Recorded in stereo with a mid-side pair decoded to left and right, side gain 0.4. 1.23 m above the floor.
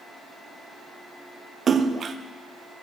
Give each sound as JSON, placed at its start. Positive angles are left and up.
{"t": 1.7, "sound": "a splash", "azimuth_deg": -50, "distance_m": 0.8}